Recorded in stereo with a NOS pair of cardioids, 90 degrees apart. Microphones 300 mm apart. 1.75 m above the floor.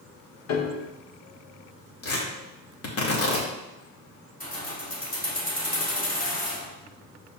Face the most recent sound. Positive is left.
turn(degrees=30)